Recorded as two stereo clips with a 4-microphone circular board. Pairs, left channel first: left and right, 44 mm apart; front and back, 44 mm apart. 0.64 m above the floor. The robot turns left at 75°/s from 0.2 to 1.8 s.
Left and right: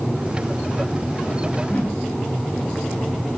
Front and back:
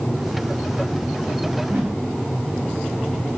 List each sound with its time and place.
1.6 s a whoosh: 155° left, 4.5 m; by 2.0 s 140° left, 4.5 m